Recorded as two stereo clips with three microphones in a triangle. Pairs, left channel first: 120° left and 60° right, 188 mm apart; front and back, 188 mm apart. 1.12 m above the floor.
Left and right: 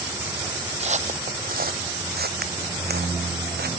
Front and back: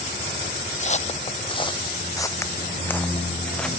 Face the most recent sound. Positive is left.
turn(degrees=-85)